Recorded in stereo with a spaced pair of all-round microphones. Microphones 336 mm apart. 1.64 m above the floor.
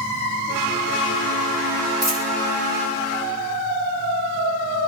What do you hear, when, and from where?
2.0 s a dropped coin: 25° right (ahead or behind), 3.5 m